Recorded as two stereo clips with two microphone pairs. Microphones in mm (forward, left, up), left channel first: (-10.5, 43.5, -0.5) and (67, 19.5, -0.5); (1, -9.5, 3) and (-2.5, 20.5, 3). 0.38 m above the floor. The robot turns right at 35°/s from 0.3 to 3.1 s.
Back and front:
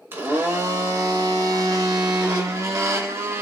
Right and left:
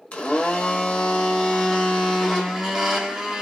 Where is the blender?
70° right, 0.9 m; by 3.4 s 30° left, 0.9 m.